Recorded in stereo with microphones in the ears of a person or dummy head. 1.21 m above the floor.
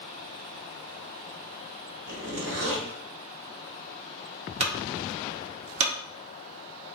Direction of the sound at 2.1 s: 55° right (ahead or behind).